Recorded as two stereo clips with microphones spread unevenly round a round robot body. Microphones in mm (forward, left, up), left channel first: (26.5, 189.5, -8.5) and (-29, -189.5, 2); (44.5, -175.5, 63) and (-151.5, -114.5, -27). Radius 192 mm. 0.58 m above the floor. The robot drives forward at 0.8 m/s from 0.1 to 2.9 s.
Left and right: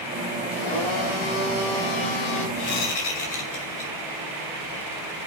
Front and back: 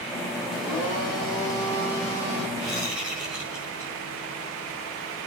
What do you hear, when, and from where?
0.5 s a blender: 45° left, 3.5 m; by 2.5 s 75° left, 2.5 m
2.6 s a whoosh: 100° left, 4 m; by 3.9 s 105° left, 4 m